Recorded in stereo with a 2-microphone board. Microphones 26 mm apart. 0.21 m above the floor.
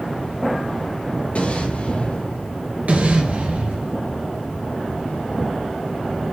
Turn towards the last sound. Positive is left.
turn(degrees=-70)  # may be behind; listen again after turning